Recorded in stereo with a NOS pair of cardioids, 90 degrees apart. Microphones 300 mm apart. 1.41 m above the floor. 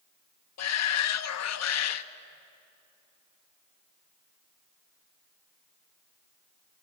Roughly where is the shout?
Ahead left.